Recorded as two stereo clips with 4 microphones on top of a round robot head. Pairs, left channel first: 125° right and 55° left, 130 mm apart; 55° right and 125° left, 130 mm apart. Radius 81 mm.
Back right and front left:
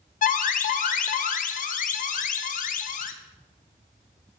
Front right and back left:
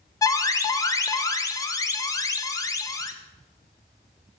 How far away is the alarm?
About 0.7 m.